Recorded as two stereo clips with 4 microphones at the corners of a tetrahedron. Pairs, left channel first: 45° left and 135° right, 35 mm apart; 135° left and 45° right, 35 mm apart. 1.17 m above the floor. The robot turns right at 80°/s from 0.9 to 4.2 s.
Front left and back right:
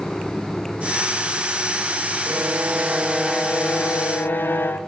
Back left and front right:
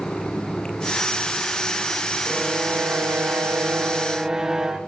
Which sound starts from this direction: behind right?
A violin, at 2.3 s.